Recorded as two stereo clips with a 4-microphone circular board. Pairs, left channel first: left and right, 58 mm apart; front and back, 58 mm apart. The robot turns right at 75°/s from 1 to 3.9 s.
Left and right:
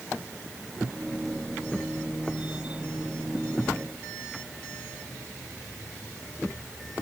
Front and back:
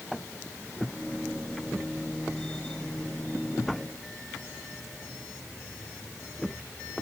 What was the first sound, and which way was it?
Only background noise.